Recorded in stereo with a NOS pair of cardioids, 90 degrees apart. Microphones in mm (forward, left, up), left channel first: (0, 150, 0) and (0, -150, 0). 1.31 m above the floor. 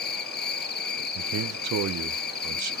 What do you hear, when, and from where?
0.0 s an insect: 35° left, 1.0 m
1.1 s a man speaking: 60° right, 1.0 m